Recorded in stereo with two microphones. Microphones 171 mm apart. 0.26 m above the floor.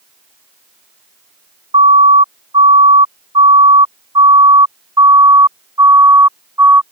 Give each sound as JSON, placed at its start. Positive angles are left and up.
{"t": 1.7, "sound": "a siren", "side_deg": -35}